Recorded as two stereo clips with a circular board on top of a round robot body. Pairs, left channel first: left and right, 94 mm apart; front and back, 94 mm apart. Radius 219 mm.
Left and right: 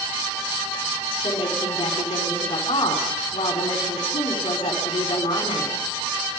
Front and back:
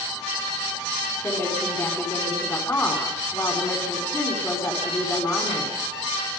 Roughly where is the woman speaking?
Ahead left.